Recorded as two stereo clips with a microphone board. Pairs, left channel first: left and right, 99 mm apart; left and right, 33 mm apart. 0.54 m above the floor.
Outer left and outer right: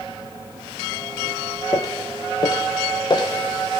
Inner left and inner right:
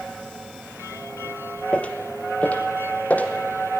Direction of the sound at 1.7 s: 35° left (ahead or behind).